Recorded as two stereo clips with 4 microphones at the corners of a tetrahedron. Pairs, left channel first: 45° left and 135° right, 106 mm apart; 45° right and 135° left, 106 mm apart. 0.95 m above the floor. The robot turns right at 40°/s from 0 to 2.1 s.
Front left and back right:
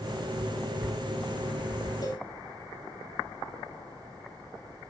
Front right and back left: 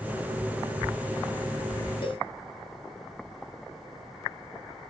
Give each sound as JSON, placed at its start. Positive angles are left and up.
{"t": 2.0, "sound": "a cowbell", "azimuth_deg": -5, "distance_m": 1.1}